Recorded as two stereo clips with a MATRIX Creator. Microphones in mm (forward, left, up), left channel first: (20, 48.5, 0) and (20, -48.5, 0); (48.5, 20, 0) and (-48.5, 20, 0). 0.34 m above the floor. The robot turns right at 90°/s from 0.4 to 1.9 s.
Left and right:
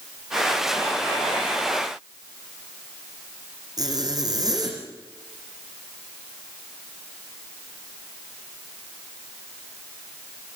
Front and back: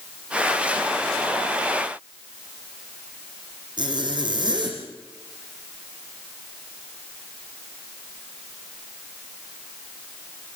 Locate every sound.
3.8 s a zipper: 140° right, 7.5 m